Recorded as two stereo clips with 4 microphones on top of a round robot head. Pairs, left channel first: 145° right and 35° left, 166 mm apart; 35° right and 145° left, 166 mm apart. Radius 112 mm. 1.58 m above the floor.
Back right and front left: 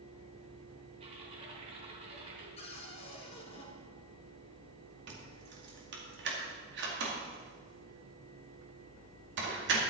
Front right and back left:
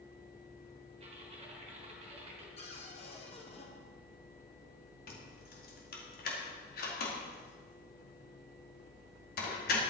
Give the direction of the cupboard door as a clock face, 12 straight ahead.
3 o'clock.